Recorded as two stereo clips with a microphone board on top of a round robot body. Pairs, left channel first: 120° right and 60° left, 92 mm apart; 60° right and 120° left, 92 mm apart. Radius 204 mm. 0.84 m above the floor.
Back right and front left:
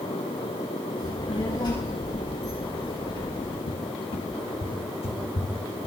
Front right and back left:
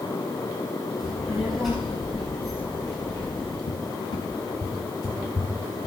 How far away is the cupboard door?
About 1.4 m.